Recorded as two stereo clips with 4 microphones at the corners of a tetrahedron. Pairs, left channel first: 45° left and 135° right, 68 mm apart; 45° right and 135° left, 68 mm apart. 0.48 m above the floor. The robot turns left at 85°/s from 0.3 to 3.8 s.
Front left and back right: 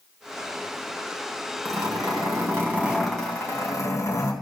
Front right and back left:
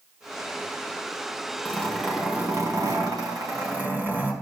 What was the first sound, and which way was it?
A zipper, 100° right.